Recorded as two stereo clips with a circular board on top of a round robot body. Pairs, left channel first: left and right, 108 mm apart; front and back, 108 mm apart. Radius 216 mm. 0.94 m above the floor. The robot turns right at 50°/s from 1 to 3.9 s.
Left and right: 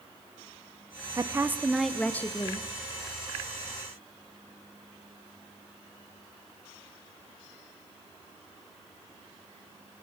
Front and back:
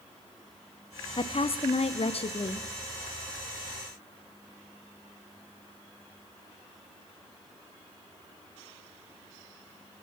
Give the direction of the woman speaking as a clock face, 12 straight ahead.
1 o'clock.